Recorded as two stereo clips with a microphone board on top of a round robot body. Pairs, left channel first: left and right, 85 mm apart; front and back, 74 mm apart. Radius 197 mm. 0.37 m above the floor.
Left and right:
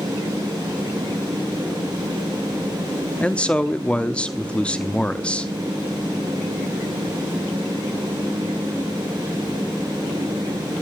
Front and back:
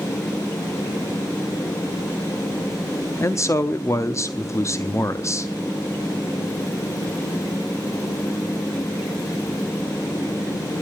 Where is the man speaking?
20° left, 0.9 m.